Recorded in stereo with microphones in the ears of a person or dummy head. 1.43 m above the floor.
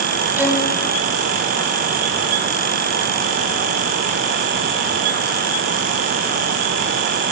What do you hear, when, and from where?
0.4 s a violin: 10° right (ahead or behind), 3.5 m